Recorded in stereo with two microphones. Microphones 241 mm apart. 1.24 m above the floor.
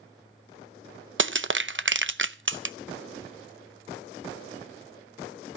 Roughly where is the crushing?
Right.